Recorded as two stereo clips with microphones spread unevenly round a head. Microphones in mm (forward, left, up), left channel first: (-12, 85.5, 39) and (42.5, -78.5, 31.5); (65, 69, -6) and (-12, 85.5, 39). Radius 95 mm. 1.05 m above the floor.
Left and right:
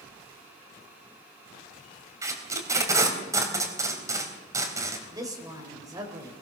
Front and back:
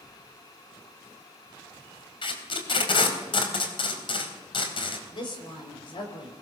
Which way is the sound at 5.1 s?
Straight ahead.